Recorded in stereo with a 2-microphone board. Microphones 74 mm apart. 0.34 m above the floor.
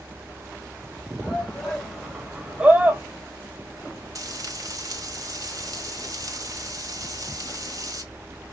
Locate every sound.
1.2 s a shout: 10° left (ahead or behind), 1.8 m; by 3.0 s 25° right (ahead or behind), 1.2 m
4.2 s frying: 50° right (ahead or behind), 1.6 m